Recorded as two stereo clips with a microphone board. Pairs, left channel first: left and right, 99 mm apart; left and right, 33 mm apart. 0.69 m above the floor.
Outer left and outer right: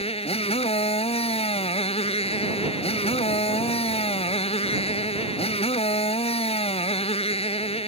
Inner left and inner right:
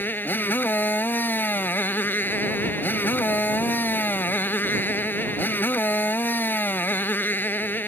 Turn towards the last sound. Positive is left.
turn(degrees=90)